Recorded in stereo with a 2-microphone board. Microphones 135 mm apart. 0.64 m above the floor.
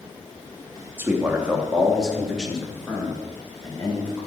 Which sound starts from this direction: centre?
A man speaking, at 1.0 s.